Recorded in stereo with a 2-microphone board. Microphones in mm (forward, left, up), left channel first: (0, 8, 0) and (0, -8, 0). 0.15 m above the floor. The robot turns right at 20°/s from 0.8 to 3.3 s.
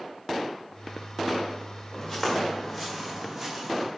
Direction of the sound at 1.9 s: 15° left (ahead or behind).